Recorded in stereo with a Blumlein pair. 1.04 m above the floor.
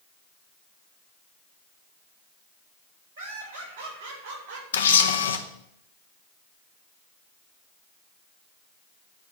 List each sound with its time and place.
3.2 s laughter: 65° right, 4.5 m; by 4.6 s 55° right, 4 m
4.7 s a camera shutter: 65° left, 0.8 m